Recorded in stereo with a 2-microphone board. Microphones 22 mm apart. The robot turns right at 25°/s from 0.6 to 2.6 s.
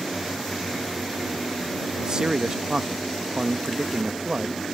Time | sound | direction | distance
2.0 | a man speaking | 40° right (ahead or behind) | ?